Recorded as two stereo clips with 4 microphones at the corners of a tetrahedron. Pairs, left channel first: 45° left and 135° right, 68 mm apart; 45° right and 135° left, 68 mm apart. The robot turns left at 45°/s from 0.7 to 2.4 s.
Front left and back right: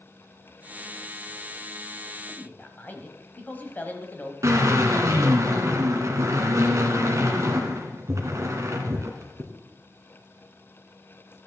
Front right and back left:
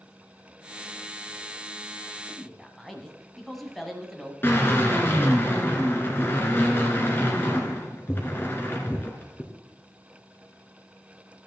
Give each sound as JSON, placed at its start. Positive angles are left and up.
{"t": 2.3, "sound": "a man speaking", "azimuth_deg": 45, "distance_m": 1.3}
{"t": 4.4, "sound": "a drill", "azimuth_deg": -100, "distance_m": 1.9}